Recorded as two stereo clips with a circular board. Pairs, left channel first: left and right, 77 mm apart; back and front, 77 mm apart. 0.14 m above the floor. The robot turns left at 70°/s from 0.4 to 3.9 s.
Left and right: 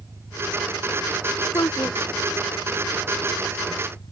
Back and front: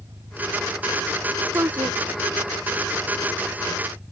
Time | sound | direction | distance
0.0 | an engine running | 40° right | ?
1.5 | a woman speaking | 50° left | ?